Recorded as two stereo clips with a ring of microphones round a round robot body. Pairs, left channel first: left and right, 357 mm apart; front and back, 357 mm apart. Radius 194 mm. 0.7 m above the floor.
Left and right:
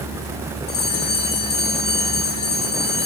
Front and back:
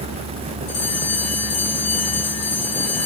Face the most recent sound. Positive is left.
turn(degrees=50)